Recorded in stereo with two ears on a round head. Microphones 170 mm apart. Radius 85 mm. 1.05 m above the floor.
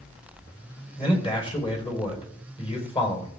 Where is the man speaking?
30° left (ahead or behind), 4 m.